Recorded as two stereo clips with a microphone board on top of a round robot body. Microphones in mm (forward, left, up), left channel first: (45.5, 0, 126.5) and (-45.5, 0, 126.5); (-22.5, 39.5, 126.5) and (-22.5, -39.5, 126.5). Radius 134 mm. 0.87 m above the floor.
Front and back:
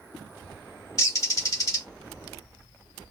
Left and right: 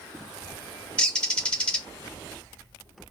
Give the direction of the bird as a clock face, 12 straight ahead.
11 o'clock.